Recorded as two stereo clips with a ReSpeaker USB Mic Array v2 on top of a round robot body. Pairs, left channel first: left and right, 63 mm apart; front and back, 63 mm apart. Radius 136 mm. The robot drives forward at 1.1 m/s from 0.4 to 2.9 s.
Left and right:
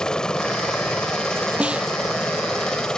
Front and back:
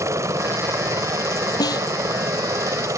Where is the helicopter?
165° left.